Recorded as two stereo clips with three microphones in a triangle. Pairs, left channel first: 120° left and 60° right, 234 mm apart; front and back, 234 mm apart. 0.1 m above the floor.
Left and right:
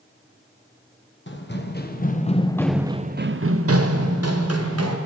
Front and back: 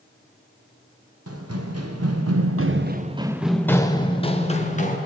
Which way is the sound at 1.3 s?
165° left.